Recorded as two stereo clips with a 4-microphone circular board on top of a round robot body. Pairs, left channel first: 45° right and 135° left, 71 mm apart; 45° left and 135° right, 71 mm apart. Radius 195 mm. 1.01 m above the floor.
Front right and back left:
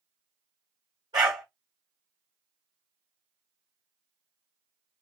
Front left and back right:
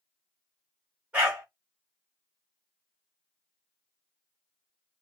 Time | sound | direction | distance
1.1 | a dog barking | 155° left | 0.7 m